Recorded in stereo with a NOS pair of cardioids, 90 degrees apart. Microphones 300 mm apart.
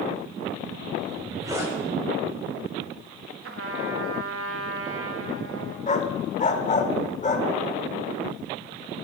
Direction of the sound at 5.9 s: 25° left.